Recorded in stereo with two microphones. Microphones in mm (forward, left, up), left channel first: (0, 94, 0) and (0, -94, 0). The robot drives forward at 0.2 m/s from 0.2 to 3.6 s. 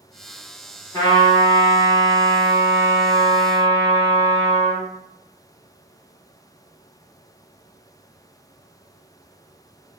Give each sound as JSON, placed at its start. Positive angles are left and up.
{"t": 0.9, "sound": "a trumpet", "side_deg": 15, "distance_m": 1.3}